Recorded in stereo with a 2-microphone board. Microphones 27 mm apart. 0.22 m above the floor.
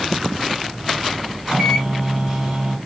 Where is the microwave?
25° right (ahead or behind), 1.9 m.